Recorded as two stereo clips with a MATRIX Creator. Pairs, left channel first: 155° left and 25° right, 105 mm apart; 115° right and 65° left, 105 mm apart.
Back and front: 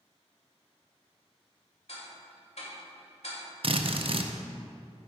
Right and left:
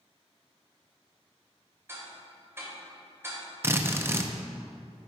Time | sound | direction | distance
1.9 | ticking | 135° left | 2.5 m
3.6 | a drill | 5° left | 0.6 m